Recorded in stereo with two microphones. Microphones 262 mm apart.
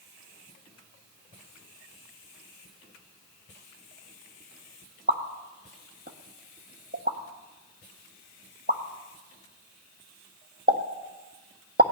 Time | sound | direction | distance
5.1 | a pop | 40° right (ahead or behind) | 1.4 m